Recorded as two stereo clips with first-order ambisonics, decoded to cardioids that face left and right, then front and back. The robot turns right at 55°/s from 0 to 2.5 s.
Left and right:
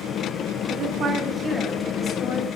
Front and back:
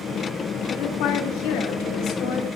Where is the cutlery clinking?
I don't hear cutlery clinking.